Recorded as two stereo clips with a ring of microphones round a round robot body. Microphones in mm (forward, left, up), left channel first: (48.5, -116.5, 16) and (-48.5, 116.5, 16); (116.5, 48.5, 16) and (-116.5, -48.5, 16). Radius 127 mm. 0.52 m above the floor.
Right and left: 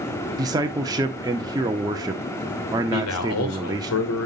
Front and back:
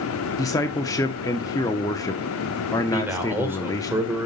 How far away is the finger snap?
I don't hear a finger snap.